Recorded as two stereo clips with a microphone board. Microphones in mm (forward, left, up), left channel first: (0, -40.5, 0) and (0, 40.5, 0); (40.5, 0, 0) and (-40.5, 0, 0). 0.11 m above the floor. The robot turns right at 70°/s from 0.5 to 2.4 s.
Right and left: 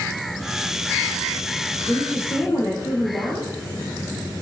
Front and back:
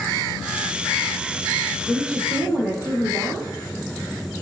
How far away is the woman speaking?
About 1.8 m.